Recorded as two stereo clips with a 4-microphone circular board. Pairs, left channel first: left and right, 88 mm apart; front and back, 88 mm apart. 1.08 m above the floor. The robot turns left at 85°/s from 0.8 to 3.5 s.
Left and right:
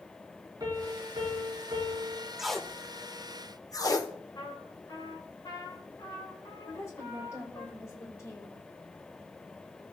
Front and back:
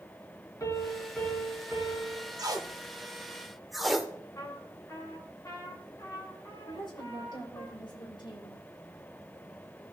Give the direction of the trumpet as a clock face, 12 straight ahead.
10 o'clock.